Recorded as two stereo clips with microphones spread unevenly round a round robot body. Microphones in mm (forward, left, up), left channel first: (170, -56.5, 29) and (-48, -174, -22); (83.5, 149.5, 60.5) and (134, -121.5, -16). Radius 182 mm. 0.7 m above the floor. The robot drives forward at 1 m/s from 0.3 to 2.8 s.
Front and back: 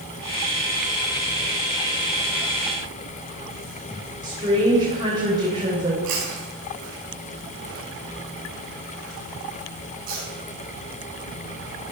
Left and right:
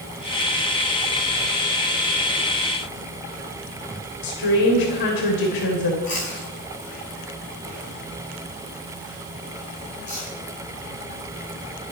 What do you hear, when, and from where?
4.2 s a woman speaking: 130° left, 3.5 m
6.0 s chewing: straight behind, 9 m